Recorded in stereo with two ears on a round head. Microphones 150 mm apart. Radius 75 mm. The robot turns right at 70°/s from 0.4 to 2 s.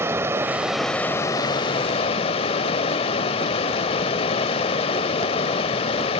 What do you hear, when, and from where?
0.0 s running water: 25° right, 1.0 m; by 6.2 s 85° left, 1.0 m